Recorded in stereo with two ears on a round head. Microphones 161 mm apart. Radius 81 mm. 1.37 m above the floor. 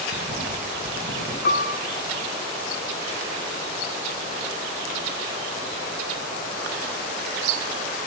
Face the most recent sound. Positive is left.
turn(degrees=50)  # may be behind; listen again after turning